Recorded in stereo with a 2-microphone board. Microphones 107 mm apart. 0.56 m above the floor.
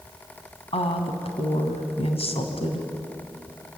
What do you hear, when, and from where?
0.7 s a woman speaking: 65° left (ahead or behind), 3.5 m